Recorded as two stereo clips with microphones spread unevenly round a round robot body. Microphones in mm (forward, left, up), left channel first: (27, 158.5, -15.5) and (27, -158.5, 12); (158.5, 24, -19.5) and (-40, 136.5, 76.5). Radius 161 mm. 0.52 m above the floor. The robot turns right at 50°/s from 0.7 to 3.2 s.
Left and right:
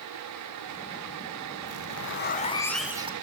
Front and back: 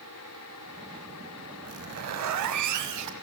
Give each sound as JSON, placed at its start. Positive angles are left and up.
{"t": 1.6, "sound": "a zipper", "azimuth_deg": 120, "distance_m": 1.8}